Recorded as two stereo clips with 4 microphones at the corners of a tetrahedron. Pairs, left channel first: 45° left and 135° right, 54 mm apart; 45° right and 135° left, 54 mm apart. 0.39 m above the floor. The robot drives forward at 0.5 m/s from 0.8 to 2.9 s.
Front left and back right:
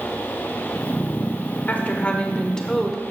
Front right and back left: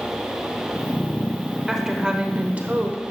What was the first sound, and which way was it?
A woman speaking, 55° left.